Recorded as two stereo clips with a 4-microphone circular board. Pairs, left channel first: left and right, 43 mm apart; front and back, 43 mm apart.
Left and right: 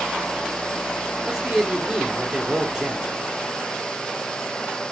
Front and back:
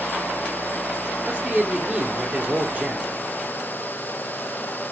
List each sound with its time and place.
1.3 s a man speaking: 160° right, 1.1 m